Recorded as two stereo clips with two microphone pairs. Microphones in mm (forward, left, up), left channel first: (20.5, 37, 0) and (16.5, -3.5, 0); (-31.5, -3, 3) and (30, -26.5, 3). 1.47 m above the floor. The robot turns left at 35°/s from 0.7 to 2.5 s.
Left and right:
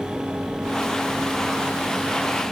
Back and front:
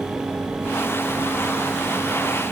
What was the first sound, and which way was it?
Only background noise.